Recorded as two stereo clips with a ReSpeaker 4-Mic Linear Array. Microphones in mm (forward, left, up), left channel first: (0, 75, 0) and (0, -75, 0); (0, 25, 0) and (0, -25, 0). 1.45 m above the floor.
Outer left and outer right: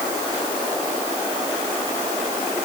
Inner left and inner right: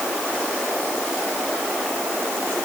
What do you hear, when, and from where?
Only background noise.